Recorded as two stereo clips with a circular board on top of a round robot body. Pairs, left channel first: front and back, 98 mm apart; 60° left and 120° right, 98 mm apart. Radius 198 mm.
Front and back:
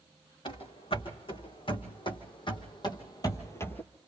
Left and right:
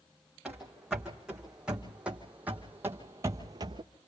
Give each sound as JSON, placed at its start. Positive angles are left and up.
{"t": 0.5, "sound": "running footsteps", "azimuth_deg": -35, "distance_m": 2.5}